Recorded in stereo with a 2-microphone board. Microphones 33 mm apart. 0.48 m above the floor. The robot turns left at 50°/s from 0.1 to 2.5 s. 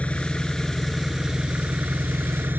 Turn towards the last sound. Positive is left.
turn(degrees=-80)